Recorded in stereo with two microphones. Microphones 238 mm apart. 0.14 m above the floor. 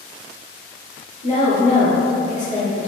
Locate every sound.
1.2 s a woman speaking: 30° left (ahead or behind), 1.8 m